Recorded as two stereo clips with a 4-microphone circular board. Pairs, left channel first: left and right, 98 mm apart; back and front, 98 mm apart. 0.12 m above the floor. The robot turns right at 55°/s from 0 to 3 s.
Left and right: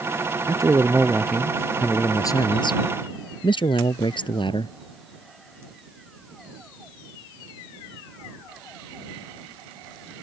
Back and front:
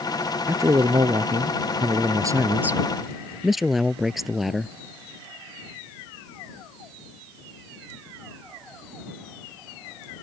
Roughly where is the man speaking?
Ahead right.